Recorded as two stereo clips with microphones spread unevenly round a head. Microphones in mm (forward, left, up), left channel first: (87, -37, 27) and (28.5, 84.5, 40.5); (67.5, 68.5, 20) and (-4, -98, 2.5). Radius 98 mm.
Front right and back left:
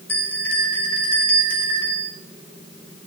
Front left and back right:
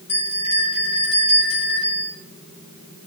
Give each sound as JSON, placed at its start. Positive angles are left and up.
{"t": 0.1, "sound": "a bell", "azimuth_deg": 10, "distance_m": 6.5}